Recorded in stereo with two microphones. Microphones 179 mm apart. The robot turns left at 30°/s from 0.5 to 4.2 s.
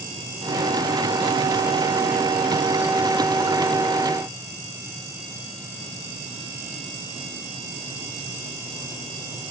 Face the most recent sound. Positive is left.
No sound to turn to.